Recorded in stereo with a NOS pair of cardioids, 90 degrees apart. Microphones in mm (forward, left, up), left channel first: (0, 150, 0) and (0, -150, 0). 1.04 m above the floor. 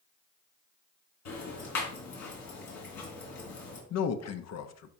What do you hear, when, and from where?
1.2 s ticking: 70° left, 3.5 m
3.9 s a man speaking: 60° left, 0.9 m